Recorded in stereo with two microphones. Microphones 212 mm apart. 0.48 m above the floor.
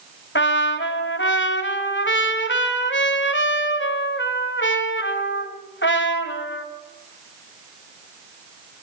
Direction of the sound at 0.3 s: 70° left (ahead or behind).